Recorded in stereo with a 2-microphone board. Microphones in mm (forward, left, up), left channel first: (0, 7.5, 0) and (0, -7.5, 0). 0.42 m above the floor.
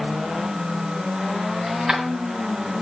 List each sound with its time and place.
1.7 s keys jangling: 75° right (ahead or behind), 1.9 m